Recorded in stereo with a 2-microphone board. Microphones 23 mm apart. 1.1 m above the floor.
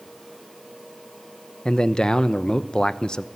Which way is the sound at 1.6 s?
40° left (ahead or behind).